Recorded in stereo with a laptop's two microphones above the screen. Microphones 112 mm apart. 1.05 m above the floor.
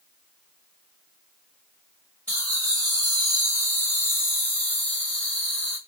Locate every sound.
2.3 s laughter: 15° left (ahead or behind), 1.2 m; by 5.8 s 10° left (ahead or behind), 1.4 m